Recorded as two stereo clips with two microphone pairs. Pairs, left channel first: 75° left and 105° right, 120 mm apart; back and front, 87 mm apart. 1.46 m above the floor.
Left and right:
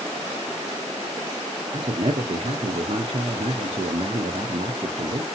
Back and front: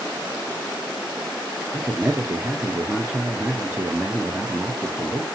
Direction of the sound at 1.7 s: 70° right.